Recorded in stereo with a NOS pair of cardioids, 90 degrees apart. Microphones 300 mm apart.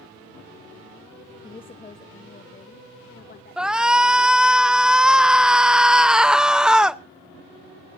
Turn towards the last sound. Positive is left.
turn(degrees=-5)